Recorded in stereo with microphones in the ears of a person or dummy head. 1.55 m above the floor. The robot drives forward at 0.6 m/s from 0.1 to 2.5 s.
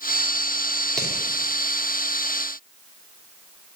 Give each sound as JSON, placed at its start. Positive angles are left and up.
{"t": 1.0, "sound": "hammering", "side_deg": 5, "distance_m": 3.5}